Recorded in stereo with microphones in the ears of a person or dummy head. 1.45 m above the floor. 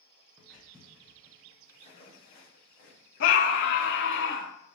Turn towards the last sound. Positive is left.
turn(degrees=50)  # may be behind; listen again after turning